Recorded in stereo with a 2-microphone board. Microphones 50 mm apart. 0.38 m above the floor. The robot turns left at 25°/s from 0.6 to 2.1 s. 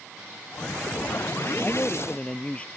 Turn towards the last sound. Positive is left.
turn(degrees=25)  # may be behind; listen again after turning